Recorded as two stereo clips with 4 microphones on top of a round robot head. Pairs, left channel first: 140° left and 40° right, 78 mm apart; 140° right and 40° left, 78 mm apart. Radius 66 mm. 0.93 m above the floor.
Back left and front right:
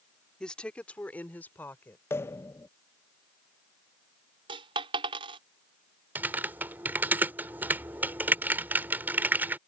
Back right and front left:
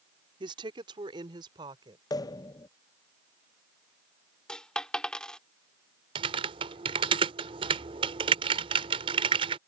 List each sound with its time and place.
0.4 s a woman speaking: 60° left; by 2.0 s 75° left
2.1 s a pop: 165° right
4.5 s a dropped coin: 60° right
6.2 s typing on a keyboard: 25° left